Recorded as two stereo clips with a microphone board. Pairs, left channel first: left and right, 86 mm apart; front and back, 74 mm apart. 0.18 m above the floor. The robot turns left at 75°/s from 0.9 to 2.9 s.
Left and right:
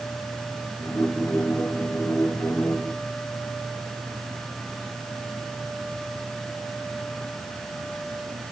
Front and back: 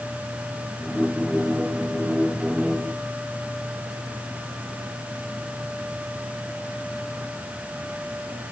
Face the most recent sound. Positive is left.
No sound to turn to.